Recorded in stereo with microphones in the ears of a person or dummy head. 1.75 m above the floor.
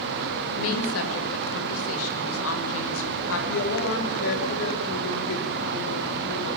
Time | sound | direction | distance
0.6 | a woman speaking | 80° left | 7 m
3.5 | a woman speaking | 65° left (ahead or behind) | 5.5 m